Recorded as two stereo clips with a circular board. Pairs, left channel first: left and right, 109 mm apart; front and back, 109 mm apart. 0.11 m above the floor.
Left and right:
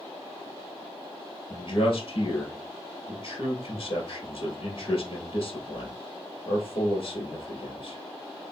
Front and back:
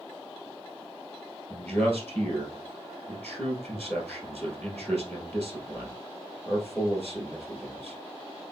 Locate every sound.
1.5 s a man speaking: 70° left, 2 m